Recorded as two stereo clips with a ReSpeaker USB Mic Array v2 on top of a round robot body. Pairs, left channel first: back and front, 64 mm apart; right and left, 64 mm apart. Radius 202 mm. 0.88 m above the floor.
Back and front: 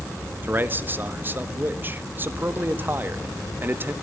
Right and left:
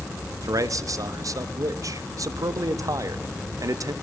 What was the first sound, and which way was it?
A man speaking, 60° left.